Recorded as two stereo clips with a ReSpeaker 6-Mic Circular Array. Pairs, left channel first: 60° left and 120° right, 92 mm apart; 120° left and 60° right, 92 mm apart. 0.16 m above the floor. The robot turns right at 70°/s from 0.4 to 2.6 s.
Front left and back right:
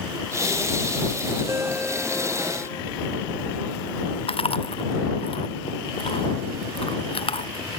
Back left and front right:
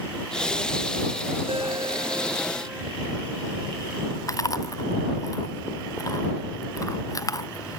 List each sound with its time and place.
1.5 s a ringtone: 60° right; by 2.8 s 20° left
4.3 s chewing: 70° left